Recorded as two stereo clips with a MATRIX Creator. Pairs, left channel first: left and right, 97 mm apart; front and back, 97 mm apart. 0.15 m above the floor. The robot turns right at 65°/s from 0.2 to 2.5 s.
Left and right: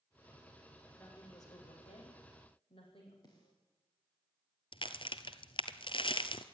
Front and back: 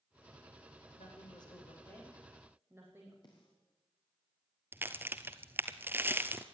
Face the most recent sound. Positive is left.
turn(degrees=115)